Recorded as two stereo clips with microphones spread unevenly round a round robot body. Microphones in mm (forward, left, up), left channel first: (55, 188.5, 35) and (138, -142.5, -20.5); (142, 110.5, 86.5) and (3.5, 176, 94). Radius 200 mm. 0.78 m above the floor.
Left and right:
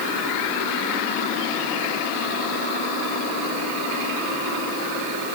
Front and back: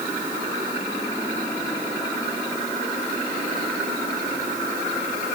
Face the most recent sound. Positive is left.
No sound to turn to.